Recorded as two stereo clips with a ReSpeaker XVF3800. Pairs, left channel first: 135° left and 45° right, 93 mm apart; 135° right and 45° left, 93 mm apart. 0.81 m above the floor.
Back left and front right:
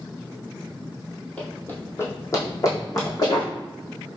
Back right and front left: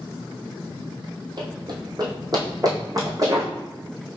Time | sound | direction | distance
1.4 | running footsteps | 60° left | 1.3 m